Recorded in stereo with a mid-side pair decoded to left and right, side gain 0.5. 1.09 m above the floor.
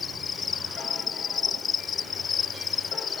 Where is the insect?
45° left.